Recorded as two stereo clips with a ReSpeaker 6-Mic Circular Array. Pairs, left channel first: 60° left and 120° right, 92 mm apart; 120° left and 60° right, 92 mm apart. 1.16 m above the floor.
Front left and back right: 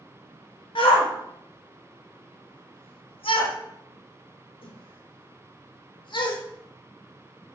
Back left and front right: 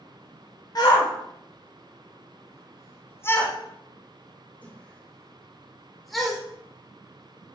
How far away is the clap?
I don't hear a clap.